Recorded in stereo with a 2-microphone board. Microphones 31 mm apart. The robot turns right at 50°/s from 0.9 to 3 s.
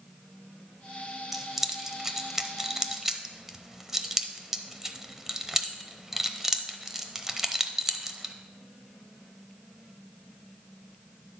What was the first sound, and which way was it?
Keys jangling, 10° right (ahead or behind).